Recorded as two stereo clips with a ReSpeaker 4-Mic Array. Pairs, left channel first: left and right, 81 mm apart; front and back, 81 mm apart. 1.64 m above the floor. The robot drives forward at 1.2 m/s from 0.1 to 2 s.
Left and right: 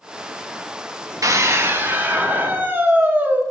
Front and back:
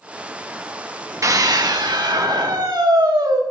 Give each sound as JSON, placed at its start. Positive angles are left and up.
{"t": 1.2, "sound": "a scream", "azimuth_deg": -135, "distance_m": 1.1}